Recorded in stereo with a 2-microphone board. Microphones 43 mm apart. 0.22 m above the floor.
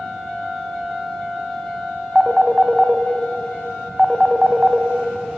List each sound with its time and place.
2.1 s a phone ringing: 10° right (ahead or behind), 0.6 m